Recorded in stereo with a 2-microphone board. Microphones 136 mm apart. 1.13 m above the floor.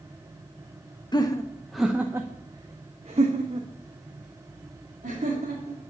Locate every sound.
1.1 s laughter: 35° left (ahead or behind), 0.7 m; by 5.8 s 65° right (ahead or behind), 2.5 m